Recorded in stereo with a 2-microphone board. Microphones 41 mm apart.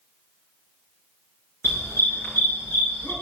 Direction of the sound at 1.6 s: 60° left (ahead or behind).